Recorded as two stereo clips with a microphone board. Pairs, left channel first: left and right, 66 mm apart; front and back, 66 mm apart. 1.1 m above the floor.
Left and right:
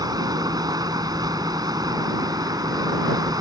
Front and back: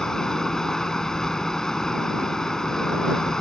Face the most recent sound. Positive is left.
turn(degrees=-80)